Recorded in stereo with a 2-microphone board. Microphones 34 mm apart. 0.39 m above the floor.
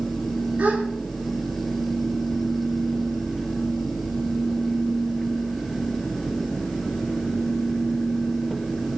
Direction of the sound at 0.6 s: 50° right (ahead or behind).